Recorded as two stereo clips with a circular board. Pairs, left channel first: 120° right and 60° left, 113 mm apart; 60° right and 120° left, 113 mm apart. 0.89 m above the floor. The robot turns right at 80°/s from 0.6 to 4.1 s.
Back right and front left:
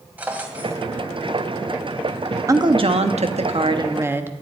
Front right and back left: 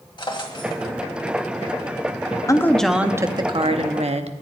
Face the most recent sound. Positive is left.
turn(degrees=130)